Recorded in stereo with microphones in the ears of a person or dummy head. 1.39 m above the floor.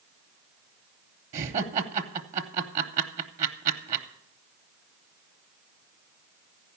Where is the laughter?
45° right (ahead or behind), 0.9 m.